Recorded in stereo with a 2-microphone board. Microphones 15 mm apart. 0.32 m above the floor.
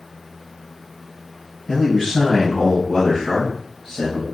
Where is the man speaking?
25° left (ahead or behind), 2.0 m; by 4.2 s 45° left (ahead or behind), 1.3 m.